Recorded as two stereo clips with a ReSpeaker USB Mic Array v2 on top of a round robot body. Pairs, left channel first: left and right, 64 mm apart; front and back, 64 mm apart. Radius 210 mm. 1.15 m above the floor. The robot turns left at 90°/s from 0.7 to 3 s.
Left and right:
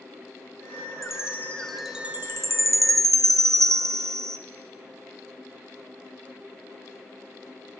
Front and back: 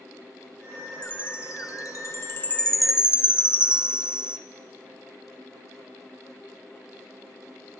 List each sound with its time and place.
1.0 s a chime: 70° left, 0.9 m; by 4.4 s 105° right, 0.9 m